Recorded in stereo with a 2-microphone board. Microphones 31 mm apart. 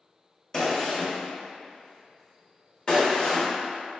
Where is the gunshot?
25° left (ahead or behind), 0.9 m.